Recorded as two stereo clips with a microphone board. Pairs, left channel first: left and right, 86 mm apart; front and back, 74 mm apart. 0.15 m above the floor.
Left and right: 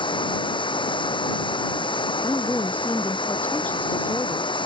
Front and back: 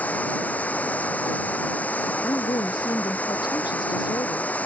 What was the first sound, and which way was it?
Running water, 70° left.